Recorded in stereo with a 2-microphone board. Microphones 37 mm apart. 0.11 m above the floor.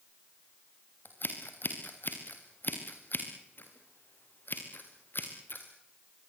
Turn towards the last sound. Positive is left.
turn(degrees=60)  # may be behind; listen again after turning